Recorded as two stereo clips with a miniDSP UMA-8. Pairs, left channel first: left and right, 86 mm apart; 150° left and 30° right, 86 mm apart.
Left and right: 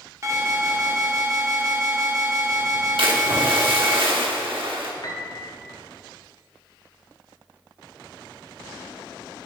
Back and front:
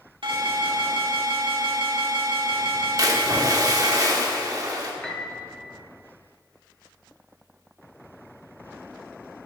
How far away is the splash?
About 1.1 m.